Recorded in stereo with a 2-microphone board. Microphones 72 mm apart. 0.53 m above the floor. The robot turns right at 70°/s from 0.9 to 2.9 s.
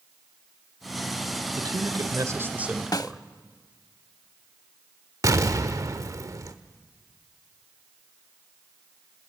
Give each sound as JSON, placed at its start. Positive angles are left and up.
{"t": 1.5, "sound": "a man speaking", "azimuth_deg": -95, "distance_m": 1.7}
{"t": 2.9, "sound": "a snare drum", "side_deg": 60, "distance_m": 0.6}
{"t": 5.2, "sound": "an explosion", "side_deg": -55, "distance_m": 1.2}